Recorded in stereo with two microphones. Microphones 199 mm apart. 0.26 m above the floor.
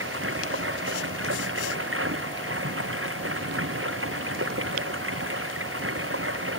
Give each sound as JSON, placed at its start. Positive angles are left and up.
{"t": 0.0, "sound": "running water", "side_deg": -80}